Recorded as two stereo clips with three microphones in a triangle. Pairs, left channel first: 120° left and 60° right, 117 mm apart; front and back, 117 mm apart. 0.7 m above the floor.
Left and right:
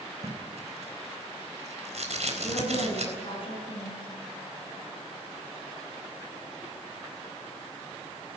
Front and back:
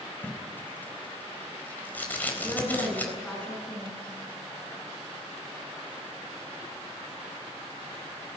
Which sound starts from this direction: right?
Tape being pulled, at 0.2 s.